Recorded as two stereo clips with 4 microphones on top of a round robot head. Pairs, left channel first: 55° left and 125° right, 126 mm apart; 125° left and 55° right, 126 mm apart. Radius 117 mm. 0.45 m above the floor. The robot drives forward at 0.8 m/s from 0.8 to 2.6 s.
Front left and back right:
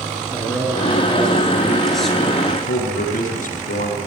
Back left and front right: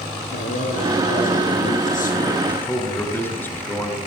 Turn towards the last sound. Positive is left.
turn(degrees=50)